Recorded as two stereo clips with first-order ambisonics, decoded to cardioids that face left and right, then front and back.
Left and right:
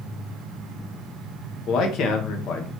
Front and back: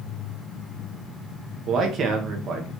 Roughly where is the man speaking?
Behind left.